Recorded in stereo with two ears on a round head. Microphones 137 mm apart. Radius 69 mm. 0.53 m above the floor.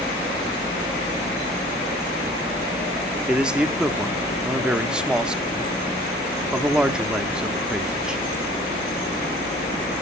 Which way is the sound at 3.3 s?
5° right (ahead or behind).